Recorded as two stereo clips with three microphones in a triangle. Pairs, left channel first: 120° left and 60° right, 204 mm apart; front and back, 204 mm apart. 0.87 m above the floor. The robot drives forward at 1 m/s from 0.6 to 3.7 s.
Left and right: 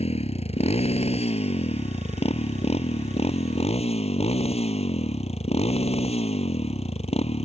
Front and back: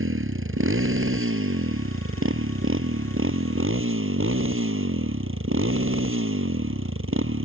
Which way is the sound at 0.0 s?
Straight behind.